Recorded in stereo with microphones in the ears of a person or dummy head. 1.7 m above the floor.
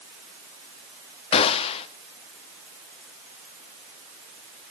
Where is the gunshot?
35° left (ahead or behind), 1.4 m.